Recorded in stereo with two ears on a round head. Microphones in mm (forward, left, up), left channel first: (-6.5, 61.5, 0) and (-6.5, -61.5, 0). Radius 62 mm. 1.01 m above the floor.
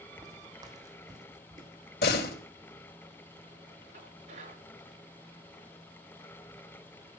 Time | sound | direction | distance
0.2 | footsteps | 25° right (ahead or behind) | 2 m
2.0 | a door slam | 85° left | 3.5 m
3.9 | dishes clattering | 55° right (ahead or behind) | 9 m